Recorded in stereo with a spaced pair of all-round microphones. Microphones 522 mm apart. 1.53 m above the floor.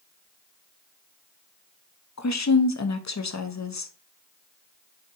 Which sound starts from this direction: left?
A woman speaking, at 2.2 s.